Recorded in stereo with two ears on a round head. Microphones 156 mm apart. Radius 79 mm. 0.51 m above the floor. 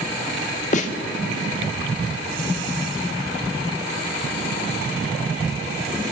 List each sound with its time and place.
0.7 s a snare drum: 45° left (ahead or behind), 1.6 m